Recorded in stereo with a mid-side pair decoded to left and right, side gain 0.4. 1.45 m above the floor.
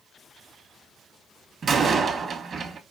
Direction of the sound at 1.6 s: 55° right.